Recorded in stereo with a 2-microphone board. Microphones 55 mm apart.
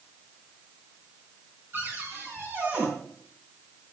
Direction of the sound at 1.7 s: 40° right (ahead or behind).